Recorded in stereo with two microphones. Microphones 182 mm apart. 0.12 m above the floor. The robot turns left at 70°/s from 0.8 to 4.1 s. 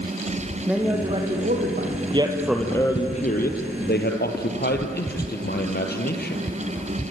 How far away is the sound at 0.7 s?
About 4.5 m.